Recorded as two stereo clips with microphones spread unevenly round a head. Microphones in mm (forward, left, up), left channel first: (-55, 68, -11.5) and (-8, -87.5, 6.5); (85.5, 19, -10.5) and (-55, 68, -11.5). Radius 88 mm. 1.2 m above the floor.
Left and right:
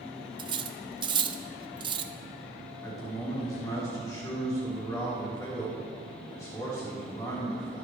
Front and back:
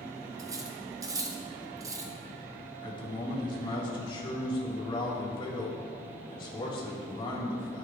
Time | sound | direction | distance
0.4 | cutlery clinking | 130° right | 0.6 m
2.8 | a man speaking | 35° left | 3.5 m